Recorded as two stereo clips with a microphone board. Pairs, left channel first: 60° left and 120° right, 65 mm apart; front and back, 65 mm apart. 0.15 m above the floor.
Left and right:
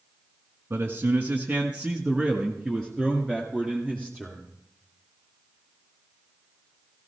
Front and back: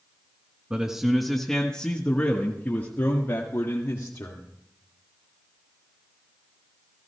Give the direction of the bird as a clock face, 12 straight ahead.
I don't hear a bird.